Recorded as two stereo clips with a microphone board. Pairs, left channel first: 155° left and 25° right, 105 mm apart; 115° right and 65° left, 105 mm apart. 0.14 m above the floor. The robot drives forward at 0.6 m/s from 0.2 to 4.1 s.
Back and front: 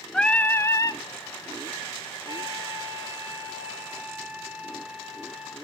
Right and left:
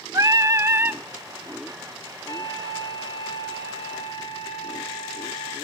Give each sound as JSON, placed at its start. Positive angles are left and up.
{"t": 0.1, "sound": "singing", "azimuth_deg": 80, "distance_m": 0.8}
{"t": 2.3, "sound": "a flute", "azimuth_deg": -65, "distance_m": 3.0}